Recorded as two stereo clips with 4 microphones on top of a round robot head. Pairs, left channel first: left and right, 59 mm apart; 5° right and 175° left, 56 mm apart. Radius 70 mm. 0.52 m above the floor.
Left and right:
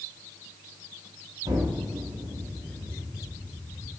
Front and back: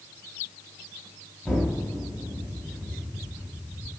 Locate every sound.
1.4 s an explosion: 95° right, 3.5 m